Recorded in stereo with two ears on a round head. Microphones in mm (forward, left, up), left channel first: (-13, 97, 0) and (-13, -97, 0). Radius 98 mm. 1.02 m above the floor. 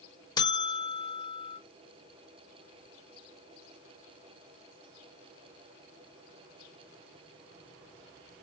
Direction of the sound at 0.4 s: 20° left (ahead or behind).